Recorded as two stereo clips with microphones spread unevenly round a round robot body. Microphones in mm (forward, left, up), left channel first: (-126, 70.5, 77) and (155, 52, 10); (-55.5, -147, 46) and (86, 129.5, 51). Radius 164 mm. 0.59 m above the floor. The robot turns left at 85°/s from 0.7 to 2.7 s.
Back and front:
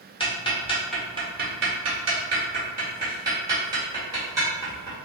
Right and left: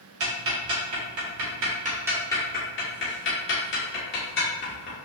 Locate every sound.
0.2 s ticking: 100° left, 1.5 m; by 5.0 s 70° right, 1.5 m